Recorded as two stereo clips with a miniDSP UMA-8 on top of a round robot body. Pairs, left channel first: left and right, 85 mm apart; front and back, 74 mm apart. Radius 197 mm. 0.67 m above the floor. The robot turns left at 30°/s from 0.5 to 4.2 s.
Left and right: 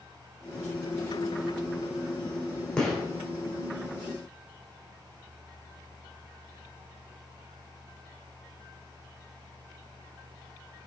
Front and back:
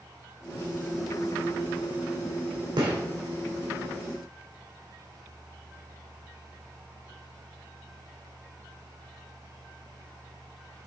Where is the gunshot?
170° left, 2 m; by 3.0 s 165° left, 2 m.